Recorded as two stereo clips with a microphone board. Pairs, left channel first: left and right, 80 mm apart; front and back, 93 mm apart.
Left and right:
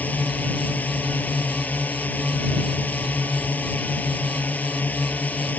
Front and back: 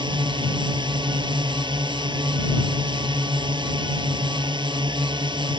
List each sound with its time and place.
0.0 s a drone: 160° left